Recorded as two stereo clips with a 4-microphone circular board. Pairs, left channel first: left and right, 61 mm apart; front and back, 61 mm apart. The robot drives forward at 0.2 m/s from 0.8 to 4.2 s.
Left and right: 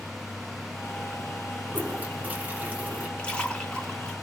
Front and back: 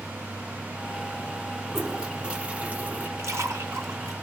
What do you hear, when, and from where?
1.7 s a toilet flushing: 100° right, 0.6 m; by 3.1 s 140° right, 0.7 m
3.2 s a splash: 160° left, 0.9 m; by 4.1 s 165° left, 1.0 m